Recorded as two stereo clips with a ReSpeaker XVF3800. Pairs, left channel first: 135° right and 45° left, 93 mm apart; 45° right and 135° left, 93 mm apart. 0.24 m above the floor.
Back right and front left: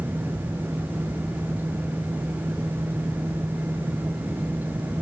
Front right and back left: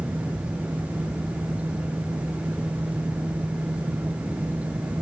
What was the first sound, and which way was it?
Only background noise.